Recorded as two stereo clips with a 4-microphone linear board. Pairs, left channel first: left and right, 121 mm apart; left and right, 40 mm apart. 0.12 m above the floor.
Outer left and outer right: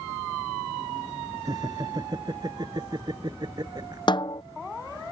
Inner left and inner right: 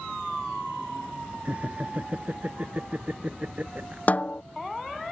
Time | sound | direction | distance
1.4 | laughter | 35° right (ahead or behind) | ?
4.1 | a snare drum | 40° left (ahead or behind) | ?